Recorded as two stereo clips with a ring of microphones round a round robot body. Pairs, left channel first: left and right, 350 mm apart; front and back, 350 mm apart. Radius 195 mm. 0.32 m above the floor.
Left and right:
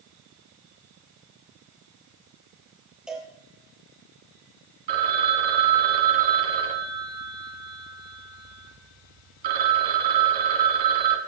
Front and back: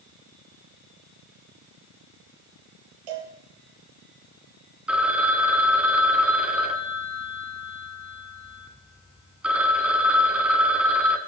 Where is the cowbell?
Straight behind, 3.5 m.